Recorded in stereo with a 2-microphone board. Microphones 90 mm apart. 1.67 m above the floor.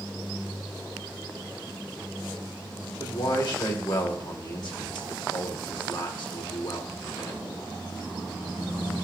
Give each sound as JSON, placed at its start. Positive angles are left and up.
{"t": 3.0, "sound": "a man speaking", "side_deg": 60, "distance_m": 2.0}